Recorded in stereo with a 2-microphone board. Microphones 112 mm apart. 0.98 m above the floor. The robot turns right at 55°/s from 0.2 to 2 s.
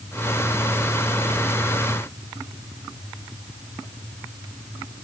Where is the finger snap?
No finger snap in this recording.